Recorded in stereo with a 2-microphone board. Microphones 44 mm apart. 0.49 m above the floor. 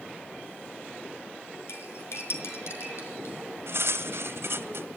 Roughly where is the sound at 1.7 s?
Left.